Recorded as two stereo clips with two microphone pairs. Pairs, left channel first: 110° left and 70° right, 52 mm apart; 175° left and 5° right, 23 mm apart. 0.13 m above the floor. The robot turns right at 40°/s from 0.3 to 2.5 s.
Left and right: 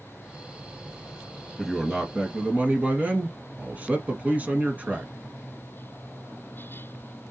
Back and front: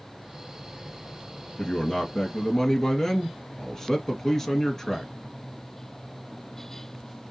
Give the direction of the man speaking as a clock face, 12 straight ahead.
5 o'clock.